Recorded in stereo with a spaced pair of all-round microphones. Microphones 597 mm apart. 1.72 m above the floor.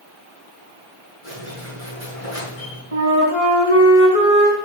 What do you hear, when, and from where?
1.2 s a squeak: 70° left (ahead or behind), 4.5 m
2.9 s a flute: 65° left (ahead or behind), 4 m